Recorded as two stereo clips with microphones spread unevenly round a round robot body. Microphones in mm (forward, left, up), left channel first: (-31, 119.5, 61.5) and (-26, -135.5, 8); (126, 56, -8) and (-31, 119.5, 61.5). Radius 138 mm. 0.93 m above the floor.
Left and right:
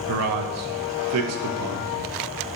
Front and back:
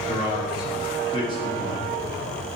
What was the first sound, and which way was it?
A man speaking, 80° right.